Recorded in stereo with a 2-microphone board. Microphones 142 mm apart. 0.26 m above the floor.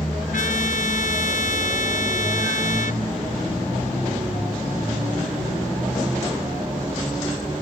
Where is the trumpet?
70° left (ahead or behind).